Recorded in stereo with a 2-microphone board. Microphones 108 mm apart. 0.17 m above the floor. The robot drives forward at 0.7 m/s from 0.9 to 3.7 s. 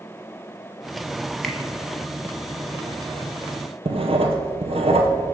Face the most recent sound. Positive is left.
turn(degrees=-65)  # may be behind; listen again after turning